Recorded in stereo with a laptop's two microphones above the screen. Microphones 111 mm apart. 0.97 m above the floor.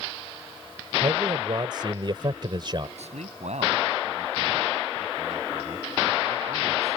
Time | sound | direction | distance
1.0 | a man speaking | 45° right (ahead or behind) | ?
3.0 | a man speaking | 85° right | ?